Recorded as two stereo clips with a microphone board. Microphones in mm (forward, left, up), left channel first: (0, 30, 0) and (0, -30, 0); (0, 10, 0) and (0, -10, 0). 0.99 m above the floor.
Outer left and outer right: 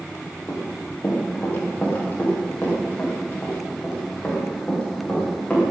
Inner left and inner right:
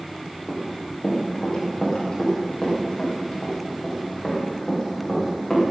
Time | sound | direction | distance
0.5 | running footsteps | 30° left (ahead or behind) | 9 m